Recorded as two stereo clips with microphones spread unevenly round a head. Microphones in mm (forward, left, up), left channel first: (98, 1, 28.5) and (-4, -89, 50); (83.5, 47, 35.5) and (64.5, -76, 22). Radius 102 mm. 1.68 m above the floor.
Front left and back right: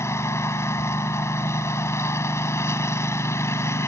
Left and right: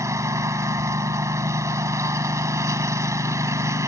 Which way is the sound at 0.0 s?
30° right.